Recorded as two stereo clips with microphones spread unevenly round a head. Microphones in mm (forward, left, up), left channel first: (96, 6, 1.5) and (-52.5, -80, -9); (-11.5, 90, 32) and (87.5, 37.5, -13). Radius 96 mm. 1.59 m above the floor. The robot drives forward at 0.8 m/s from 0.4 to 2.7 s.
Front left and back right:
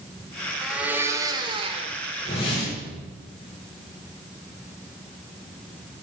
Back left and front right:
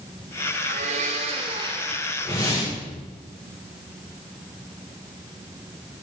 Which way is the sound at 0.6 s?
60° right.